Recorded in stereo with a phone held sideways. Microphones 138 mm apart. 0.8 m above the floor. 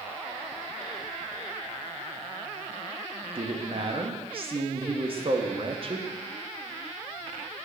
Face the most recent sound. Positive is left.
turn(degrees=-45)  # may be behind; listen again after turning